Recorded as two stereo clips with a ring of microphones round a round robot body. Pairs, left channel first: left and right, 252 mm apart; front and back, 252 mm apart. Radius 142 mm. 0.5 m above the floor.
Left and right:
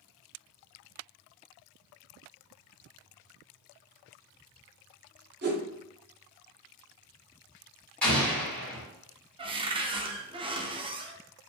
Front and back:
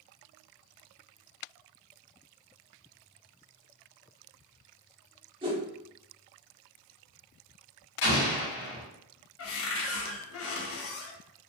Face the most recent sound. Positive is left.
turn(degrees=-20)